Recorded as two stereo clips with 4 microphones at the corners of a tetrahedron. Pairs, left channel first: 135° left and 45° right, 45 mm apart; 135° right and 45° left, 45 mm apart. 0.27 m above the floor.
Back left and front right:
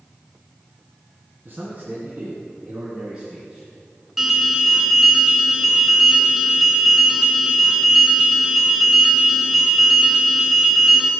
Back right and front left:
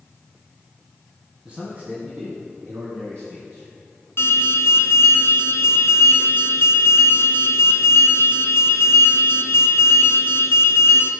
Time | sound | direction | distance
1.4 | a man speaking | 20° right | 1.8 m
4.2 | an alarm | 125° right | 1.9 m